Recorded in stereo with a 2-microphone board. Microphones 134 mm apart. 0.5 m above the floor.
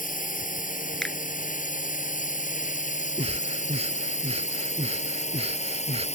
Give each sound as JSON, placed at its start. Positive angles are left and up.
{"t": 0.0, "sound": "a drone", "side_deg": 85}
{"t": 1.0, "sound": "a finger snap", "side_deg": 5}
{"t": 3.2, "sound": "breathing", "side_deg": -50}